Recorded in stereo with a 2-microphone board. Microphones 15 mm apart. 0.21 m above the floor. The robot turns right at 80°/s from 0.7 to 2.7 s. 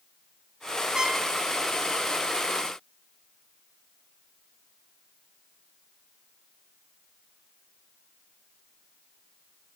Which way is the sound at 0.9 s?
50° right (ahead or behind).